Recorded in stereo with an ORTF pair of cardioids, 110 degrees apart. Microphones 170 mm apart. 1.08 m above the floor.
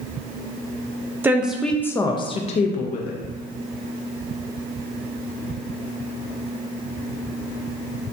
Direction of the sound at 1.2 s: 10° right.